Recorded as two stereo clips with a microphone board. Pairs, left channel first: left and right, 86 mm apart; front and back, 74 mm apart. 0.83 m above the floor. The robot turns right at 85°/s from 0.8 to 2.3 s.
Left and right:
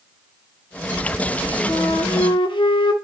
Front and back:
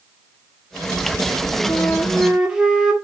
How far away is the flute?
About 1.2 m.